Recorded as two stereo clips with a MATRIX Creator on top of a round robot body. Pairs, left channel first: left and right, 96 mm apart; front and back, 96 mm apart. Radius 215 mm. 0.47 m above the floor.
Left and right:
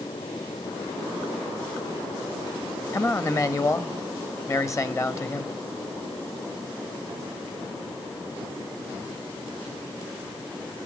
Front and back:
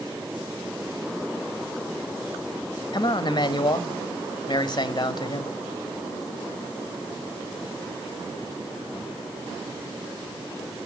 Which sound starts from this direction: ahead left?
A man speaking, at 2.9 s.